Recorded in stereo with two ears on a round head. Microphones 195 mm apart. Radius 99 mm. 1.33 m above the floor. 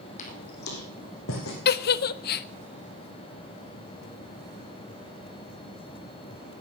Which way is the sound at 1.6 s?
45° left (ahead or behind).